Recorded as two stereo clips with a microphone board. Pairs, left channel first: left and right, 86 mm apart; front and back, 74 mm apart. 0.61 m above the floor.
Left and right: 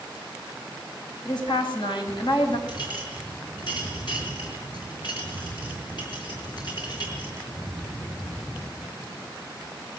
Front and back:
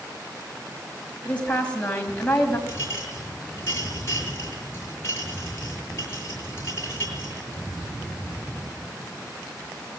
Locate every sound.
1.2 s a woman speaking: 70° left, 4.5 m
2.7 s a clink: 55° left, 6.5 m